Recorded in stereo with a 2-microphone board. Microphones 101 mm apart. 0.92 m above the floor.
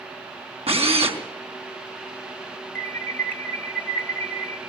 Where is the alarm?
20° left (ahead or behind), 2.5 m.